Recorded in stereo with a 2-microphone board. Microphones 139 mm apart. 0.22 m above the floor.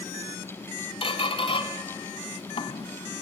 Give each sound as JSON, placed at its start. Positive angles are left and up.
{"t": 1.0, "sound": "a squeak", "side_deg": 40, "distance_m": 1.1}